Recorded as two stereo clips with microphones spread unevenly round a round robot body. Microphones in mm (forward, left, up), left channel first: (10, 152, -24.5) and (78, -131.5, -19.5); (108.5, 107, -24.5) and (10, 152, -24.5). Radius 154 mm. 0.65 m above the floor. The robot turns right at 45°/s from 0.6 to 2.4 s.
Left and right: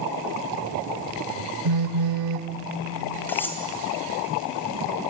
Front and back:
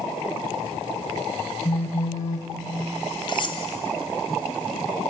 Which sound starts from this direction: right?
A phone buzzing, at 1.6 s.